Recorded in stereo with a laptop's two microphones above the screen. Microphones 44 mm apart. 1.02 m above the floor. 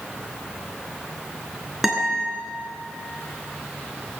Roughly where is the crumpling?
I don't hear crumpling.